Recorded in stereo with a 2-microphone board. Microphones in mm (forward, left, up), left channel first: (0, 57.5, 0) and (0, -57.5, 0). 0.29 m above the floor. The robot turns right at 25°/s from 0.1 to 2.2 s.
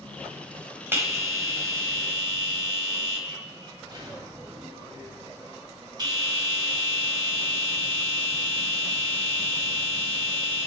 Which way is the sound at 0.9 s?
150° right.